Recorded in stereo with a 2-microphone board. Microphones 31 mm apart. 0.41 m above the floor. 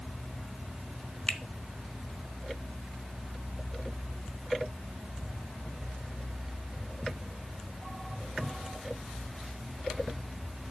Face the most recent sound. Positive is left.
turn(degrees=40)  # may be behind; listen again after turning